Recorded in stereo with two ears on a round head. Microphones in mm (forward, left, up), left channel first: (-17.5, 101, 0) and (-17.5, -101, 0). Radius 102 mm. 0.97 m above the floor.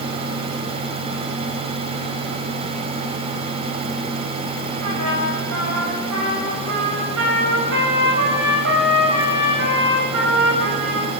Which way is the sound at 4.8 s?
65° right (ahead or behind).